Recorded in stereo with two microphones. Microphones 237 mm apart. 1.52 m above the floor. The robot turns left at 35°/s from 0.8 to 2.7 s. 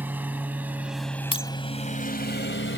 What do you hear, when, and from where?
0.0 s a lawn mower: 10° right (ahead or behind); by 2.8 s 55° left (ahead or behind)
1.3 s breaking glass: 20° left (ahead or behind)